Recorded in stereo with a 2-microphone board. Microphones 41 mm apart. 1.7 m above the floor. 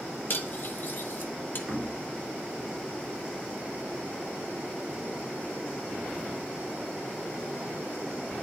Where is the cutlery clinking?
50° left (ahead or behind), 1.3 m.